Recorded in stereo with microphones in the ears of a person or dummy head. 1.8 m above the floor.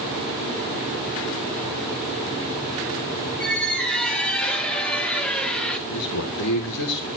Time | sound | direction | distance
3.4 | a squeak | 5° left (ahead or behind) | 1.5 m
5.9 | a man speaking | 80° left | 2 m